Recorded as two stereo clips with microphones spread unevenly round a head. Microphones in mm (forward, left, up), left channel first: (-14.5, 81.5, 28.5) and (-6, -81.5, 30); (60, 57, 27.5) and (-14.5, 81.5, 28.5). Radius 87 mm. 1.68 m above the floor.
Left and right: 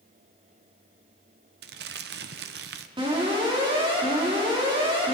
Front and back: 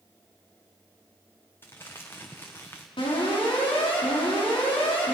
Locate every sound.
1.6 s crumpling: 95° right, 0.8 m
3.0 s an alarm: 25° right, 5 m